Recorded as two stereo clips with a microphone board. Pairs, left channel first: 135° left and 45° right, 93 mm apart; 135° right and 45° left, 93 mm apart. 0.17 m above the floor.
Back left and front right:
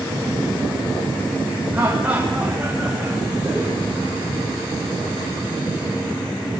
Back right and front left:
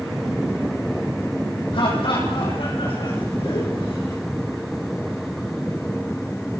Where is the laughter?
115° right, 7.5 m; by 4.2 s 135° right, 9 m.